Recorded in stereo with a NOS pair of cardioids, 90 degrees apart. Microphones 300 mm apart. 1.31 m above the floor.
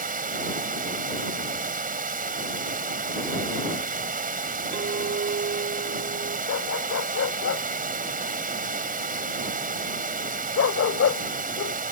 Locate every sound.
0.0 s running water: 30° right
4.7 s a clink: 35° right
6.5 s a dog barking: 50° left